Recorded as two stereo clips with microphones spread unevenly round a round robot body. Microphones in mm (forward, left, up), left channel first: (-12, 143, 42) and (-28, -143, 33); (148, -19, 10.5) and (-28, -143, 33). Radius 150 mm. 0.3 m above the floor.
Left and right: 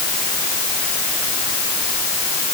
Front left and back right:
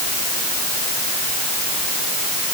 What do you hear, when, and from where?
Only background noise.